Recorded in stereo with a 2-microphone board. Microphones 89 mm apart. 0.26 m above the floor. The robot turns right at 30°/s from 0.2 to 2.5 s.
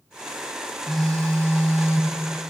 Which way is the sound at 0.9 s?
5° left.